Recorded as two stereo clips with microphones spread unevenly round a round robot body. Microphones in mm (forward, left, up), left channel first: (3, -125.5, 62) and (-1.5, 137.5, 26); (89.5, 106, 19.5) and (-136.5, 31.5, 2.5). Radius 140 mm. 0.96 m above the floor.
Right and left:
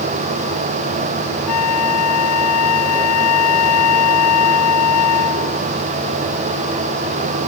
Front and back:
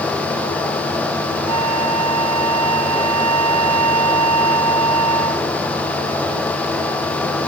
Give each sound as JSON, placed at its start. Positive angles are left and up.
{"t": 1.5, "sound": "a flute", "azimuth_deg": -120}